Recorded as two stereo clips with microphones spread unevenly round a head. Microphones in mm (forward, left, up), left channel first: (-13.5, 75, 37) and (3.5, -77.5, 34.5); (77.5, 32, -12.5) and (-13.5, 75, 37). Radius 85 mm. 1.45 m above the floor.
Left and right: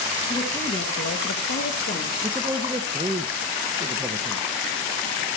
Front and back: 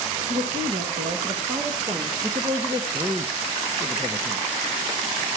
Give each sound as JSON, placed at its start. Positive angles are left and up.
{"t": 0.3, "sound": "a woman speaking", "azimuth_deg": 160, "distance_m": 1.7}
{"t": 2.2, "sound": "a man speaking", "azimuth_deg": -155, "distance_m": 0.9}